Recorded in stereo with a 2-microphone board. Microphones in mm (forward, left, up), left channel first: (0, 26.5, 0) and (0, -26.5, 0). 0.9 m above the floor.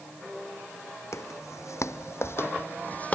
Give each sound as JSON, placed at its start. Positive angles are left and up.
{"t": 1.1, "sound": "footsteps", "side_deg": 70}